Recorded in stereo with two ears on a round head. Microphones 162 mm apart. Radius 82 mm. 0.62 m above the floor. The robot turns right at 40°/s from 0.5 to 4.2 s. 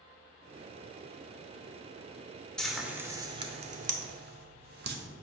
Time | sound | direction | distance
2.6 | frying | 5° left (ahead or behind) | 0.8 m